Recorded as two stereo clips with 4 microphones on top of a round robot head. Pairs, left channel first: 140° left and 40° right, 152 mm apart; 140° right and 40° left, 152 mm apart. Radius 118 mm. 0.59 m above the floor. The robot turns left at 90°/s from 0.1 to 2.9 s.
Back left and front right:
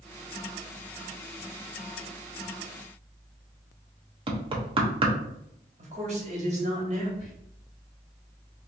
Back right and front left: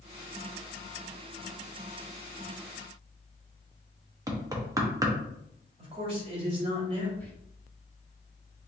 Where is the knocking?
15° right, 1.1 m.